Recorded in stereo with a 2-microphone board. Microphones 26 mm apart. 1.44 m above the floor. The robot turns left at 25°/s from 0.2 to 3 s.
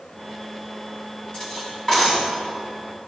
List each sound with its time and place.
1.3 s cutlery clinking: 50° left (ahead or behind), 6 m; by 2.2 s 25° left (ahead or behind), 6 m